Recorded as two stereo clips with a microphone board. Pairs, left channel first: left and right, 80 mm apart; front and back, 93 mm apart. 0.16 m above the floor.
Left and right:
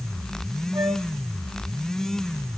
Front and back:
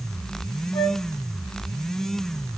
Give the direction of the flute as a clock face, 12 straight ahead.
2 o'clock.